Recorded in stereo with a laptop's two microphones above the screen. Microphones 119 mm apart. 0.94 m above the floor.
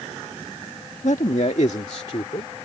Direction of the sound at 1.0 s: 80° left.